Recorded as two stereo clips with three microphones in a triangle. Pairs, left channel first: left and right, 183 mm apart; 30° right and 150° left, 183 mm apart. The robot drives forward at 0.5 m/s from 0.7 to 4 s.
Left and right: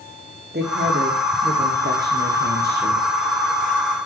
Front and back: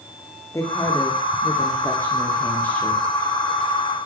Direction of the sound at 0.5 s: 105° right.